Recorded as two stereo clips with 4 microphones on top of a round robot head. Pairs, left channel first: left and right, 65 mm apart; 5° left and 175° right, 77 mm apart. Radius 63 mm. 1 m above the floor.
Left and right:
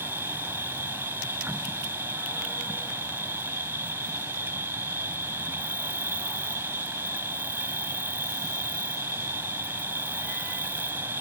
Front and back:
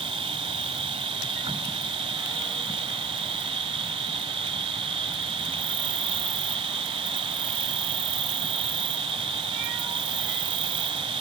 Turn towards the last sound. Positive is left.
turn(degrees=-160)